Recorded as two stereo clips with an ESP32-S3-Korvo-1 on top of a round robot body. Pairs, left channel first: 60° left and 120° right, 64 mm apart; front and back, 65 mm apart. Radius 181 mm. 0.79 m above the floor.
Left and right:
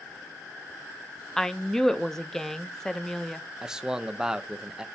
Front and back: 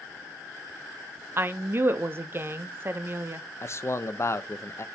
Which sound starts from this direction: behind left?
A woman speaking, at 1.4 s.